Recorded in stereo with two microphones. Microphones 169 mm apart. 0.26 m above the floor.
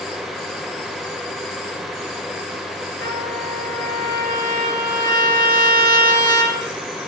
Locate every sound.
3.0 s a trumpet: 80° right, 4.5 m